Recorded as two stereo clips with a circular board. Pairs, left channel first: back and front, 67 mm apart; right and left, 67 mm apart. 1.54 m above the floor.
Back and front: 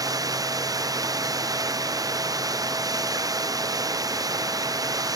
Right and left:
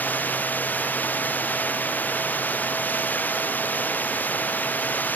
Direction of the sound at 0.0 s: 25° right.